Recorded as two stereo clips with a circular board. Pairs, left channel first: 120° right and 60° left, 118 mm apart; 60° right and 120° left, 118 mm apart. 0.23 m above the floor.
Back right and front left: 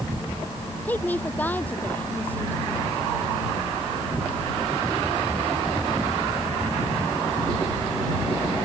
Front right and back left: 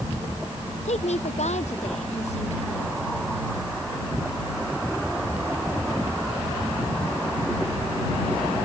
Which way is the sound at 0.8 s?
45° right.